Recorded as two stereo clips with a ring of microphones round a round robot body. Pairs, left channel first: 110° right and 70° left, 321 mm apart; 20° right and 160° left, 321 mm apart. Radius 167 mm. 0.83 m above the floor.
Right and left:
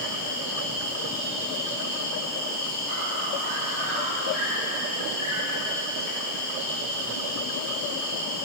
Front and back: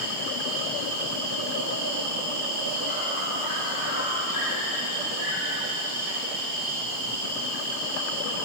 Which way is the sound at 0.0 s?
175° right.